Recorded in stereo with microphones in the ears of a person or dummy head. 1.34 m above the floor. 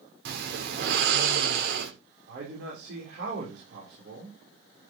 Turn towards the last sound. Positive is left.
turn(degrees=-70)  # may be behind; listen again after turning